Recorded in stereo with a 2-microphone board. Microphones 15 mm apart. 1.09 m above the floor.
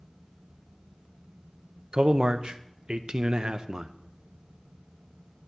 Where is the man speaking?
65° right (ahead or behind), 0.6 m.